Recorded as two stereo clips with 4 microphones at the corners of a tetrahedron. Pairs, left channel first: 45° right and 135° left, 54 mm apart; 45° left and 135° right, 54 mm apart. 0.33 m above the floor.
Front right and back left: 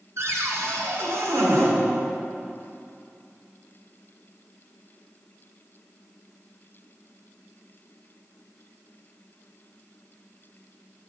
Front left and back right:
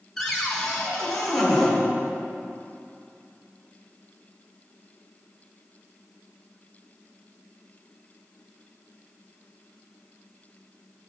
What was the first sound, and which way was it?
A cupboard door, 130° left.